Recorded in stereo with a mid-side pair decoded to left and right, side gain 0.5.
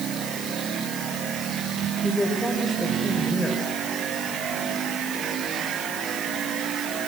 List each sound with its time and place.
2.0 s a woman speaking: 15° left, 6.5 m